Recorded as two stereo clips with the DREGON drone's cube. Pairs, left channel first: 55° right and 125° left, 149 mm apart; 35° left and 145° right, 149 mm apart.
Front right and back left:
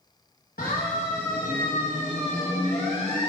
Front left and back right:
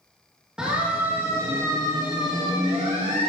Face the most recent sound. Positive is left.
turn(degrees=-105)